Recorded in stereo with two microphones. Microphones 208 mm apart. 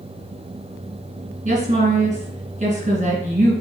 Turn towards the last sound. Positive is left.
turn(degrees=-40)  # may be behind; listen again after turning